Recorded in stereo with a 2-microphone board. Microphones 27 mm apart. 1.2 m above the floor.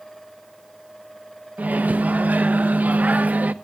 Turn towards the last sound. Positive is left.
turn(degrees=-85)